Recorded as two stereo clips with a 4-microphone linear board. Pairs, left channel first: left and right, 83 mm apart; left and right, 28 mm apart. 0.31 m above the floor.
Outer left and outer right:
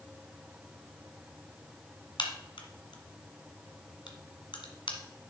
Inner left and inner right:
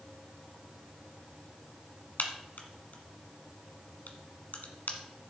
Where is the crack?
75° left (ahead or behind), 1.5 m.